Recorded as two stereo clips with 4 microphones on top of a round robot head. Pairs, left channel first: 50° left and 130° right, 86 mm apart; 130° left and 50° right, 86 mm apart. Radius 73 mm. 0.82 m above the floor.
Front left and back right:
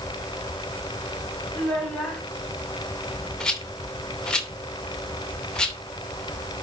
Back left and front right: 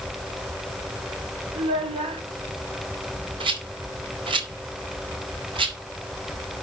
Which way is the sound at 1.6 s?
30° right.